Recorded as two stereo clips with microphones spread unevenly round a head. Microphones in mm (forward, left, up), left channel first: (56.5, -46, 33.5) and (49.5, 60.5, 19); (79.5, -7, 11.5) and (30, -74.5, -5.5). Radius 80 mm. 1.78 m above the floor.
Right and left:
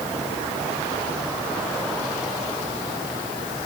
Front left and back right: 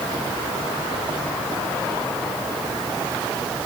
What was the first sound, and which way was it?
Only background noise.